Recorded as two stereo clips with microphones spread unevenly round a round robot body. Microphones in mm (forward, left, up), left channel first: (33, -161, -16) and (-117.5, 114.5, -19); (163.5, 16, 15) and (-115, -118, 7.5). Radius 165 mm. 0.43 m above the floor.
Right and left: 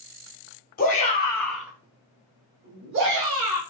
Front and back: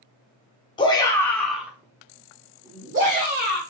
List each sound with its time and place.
0.8 s a shout: 35° right, 0.8 m; by 3.6 s 150° left, 1.4 m